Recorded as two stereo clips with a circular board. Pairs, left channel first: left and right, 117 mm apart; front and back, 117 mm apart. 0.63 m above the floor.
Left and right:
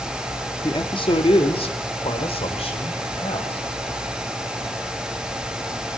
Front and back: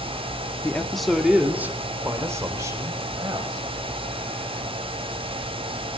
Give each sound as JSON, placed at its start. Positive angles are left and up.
{"t": 0.6, "sound": "a man speaking", "azimuth_deg": 70, "distance_m": 1.4}